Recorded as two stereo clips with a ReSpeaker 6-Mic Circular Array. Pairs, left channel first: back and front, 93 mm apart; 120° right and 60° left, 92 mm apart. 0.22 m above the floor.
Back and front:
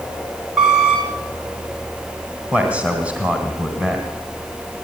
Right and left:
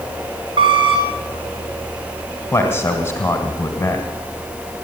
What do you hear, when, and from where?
0.6 s a squeak: 85° left, 3 m
2.5 s a man speaking: 70° right, 1.9 m